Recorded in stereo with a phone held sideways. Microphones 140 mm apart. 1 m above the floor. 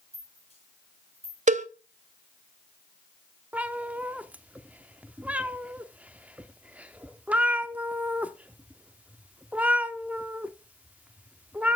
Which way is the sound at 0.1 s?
45° left (ahead or behind).